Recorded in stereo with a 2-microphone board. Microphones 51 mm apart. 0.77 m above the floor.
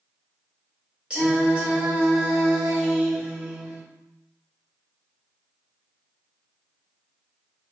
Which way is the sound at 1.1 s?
20° right (ahead or behind).